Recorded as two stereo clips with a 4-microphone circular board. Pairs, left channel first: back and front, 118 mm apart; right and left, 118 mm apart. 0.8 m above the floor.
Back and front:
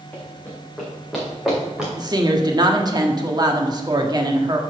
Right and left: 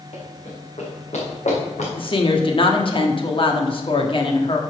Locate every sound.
0.1 s running footsteps: 105° right, 3.5 m; by 1.9 s 85° right, 4.5 m
2.0 s a woman speaking: 50° right, 1.3 m